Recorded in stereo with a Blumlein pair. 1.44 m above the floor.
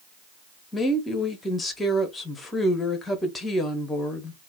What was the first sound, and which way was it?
A woman speaking, 10° left.